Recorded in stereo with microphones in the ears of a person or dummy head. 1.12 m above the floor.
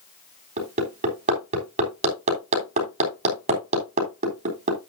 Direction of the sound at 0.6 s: 45° right (ahead or behind).